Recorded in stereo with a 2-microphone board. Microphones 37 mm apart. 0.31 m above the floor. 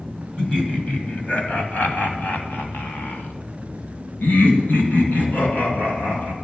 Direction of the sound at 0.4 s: 30° left (ahead or behind).